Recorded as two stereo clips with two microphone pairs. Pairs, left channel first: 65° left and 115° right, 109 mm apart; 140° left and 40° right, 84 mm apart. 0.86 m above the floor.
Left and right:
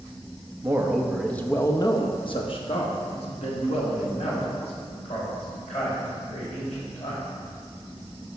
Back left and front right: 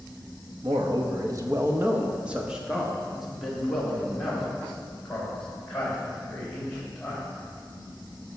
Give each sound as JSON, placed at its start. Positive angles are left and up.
{"t": 0.6, "sound": "a man speaking", "azimuth_deg": -55, "distance_m": 0.9}